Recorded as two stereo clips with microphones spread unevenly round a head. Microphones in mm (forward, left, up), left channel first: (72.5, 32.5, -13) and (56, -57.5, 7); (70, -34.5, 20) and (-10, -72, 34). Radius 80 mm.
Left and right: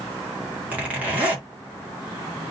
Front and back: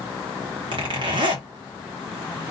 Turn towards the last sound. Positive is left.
turn(degrees=-165)